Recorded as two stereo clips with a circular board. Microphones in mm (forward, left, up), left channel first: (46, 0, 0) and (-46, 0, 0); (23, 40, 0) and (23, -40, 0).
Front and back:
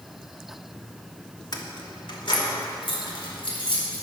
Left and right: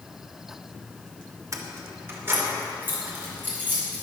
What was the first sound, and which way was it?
Keys jangling, 40° right.